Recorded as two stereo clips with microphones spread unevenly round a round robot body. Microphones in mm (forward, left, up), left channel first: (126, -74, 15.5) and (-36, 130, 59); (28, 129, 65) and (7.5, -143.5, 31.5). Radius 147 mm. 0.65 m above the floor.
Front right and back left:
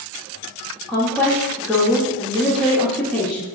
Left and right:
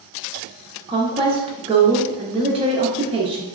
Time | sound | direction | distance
0.9 | a woman speaking | 115° right | 0.6 m